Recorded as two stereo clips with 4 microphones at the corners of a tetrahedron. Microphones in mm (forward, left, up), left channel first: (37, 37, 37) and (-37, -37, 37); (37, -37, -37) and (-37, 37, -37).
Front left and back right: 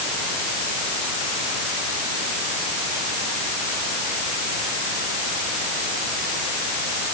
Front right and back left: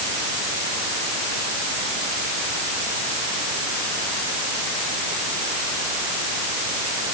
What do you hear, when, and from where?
Only background noise.